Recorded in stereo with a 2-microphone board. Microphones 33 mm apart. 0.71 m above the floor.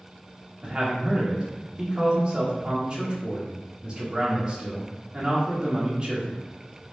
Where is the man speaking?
30° right (ahead or behind), 1.0 m.